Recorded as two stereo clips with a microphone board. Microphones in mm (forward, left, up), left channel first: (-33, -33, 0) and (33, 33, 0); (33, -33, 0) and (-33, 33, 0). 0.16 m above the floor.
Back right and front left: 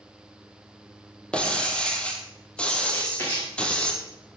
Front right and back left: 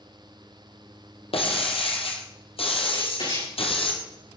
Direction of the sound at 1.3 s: 55° right.